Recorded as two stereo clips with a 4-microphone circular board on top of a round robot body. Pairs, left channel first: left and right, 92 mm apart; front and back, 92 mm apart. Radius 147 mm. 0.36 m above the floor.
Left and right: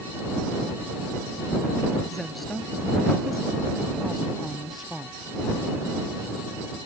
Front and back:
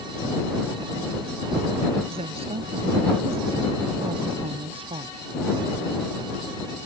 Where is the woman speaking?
Straight behind.